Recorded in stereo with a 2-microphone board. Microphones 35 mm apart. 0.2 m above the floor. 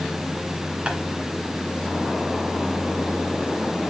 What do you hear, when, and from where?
0.9 s tapping: 30° right (ahead or behind), 1.7 m